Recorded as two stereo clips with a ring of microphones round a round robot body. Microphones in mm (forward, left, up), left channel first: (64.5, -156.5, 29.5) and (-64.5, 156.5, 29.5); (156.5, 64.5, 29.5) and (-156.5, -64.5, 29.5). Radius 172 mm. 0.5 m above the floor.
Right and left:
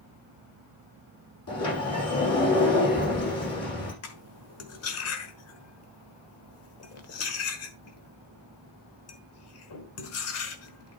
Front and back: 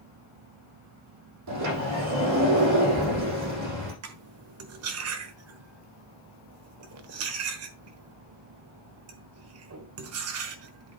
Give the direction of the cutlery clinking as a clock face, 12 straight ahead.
4 o'clock.